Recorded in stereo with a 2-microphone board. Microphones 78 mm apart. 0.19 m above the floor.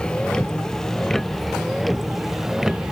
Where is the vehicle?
10° left (ahead or behind); by 2.9 s 5° right (ahead or behind).